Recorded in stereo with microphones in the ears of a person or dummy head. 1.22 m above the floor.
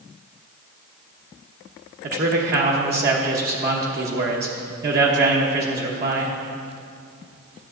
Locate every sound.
2.0 s a man speaking: 45° right (ahead or behind), 1.0 m